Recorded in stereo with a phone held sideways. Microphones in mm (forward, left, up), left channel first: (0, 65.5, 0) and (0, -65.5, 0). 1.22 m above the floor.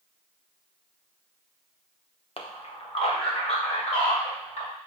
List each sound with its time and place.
2.4 s a man speaking: 45° left (ahead or behind), 0.8 m; by 4.7 s 50° left (ahead or behind), 2.5 m